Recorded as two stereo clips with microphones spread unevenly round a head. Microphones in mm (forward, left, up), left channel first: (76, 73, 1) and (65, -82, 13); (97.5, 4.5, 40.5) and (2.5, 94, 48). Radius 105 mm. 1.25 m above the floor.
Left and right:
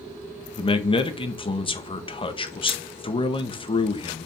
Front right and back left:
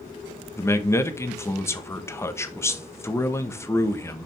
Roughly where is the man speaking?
Ahead left.